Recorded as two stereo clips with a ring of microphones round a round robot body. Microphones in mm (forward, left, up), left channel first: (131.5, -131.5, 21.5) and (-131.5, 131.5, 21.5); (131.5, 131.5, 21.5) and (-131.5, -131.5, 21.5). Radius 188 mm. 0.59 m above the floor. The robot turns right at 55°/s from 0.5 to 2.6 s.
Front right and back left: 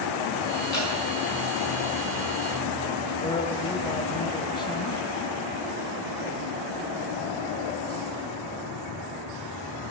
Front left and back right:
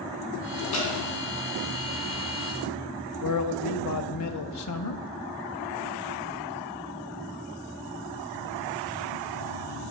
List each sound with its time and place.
0.7 s dripping: 15° left, 4.5 m; by 0.9 s 25° left, 4.5 m
3.2 s a man speaking: 30° left, 0.7 m